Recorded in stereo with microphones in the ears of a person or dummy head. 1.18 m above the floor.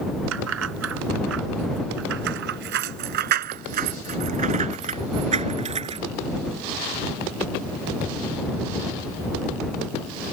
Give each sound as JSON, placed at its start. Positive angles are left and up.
{"t": 0.3, "sound": "keys jangling", "side_deg": -85}